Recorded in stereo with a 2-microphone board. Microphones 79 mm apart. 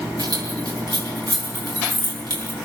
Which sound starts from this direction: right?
Keys jangling, at 0.2 s.